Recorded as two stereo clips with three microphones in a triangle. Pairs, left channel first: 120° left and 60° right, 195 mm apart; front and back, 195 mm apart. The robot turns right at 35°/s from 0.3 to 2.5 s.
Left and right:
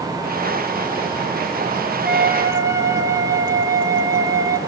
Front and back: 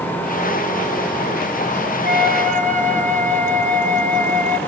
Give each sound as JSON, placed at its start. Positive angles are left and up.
{"t": 2.0, "sound": "a flute", "azimuth_deg": -150, "distance_m": 0.8}